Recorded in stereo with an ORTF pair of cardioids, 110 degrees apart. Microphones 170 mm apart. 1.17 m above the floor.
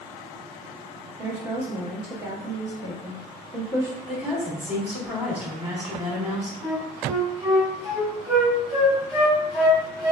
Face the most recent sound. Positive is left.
turn(degrees=-5)